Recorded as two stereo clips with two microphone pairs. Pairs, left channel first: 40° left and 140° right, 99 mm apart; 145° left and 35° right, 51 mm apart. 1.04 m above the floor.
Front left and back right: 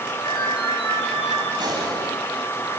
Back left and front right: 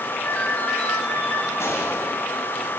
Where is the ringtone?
85° left, 8 m.